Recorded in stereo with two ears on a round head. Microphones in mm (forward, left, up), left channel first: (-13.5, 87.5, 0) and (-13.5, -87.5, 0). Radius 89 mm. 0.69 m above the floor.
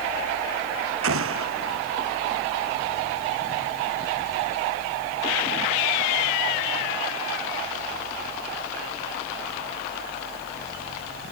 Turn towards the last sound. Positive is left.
turn(degrees=-75)  # may be behind; listen again after turning